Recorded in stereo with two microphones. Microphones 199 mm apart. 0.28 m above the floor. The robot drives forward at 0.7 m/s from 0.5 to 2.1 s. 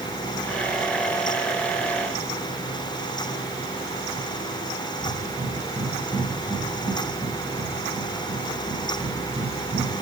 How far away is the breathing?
About 1.6 m.